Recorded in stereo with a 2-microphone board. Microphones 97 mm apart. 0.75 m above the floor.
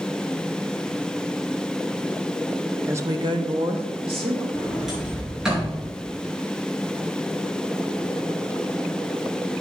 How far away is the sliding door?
About 5 m.